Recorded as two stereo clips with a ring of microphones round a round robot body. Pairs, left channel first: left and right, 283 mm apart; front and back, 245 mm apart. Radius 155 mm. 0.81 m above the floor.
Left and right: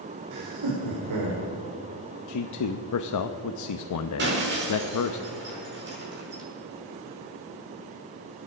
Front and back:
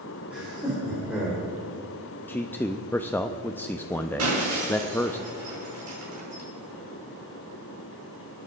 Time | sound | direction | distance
0.3 | laughter | 95° right | 2.5 m
2.3 | a man speaking | 80° left | 0.7 m
4.2 | breaking glass | 145° right | 6 m